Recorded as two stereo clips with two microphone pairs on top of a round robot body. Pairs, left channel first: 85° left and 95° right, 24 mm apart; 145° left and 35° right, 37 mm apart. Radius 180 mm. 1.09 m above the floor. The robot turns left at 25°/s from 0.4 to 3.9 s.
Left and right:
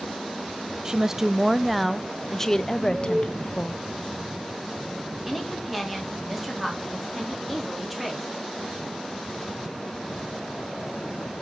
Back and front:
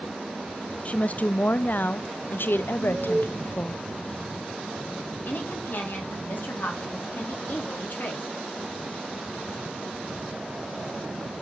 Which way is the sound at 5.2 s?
175° left.